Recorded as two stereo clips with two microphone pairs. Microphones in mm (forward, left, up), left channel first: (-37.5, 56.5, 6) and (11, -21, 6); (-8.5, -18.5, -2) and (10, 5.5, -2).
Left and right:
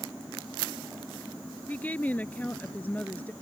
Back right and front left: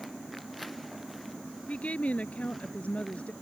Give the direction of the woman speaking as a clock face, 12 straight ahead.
5 o'clock.